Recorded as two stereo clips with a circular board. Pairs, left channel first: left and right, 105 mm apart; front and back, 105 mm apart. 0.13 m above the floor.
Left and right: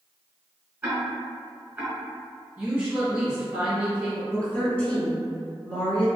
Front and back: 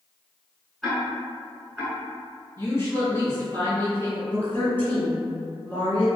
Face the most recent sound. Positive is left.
turn(degrees=35)